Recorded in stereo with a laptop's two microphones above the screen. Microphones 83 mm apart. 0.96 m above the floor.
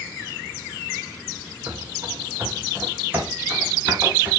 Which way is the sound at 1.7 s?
20° right (ahead or behind).